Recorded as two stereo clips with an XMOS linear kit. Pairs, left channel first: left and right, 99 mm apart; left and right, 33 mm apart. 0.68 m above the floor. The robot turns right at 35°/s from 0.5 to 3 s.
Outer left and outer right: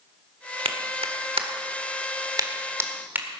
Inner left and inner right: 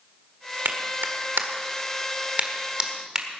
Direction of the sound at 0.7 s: 75° right (ahead or behind).